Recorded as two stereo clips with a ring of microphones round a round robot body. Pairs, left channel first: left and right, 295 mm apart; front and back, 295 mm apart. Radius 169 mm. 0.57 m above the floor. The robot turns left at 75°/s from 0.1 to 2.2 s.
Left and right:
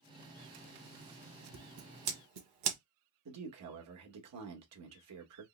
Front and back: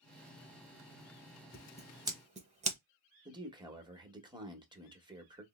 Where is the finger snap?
No finger snap in this recording.